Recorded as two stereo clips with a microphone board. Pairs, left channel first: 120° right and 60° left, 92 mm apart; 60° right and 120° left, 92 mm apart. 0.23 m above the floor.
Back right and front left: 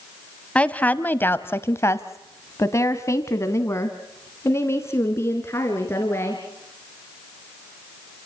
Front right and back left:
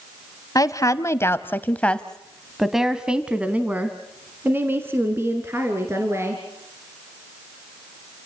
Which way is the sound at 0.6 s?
50° right.